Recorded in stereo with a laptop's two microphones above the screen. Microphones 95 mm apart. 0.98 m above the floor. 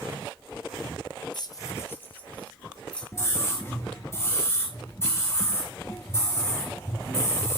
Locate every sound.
1.3 s keys jangling: 50° left (ahead or behind), 0.6 m; by 3.0 s 10° left (ahead or behind), 2 m
3.1 s a scream: 30° left (ahead or behind), 1.0 m